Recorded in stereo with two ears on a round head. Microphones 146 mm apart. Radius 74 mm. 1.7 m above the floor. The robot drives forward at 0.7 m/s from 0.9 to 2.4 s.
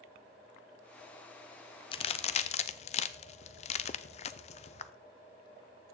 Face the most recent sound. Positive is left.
turn(degrees=40)  # may be behind; listen again after turning